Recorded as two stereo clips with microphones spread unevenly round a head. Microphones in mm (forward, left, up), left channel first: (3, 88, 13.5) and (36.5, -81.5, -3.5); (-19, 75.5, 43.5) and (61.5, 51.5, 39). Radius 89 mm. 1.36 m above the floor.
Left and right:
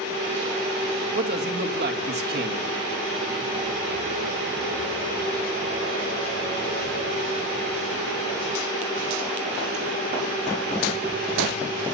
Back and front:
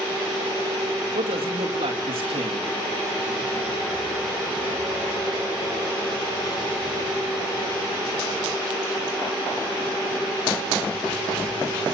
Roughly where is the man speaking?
Ahead right.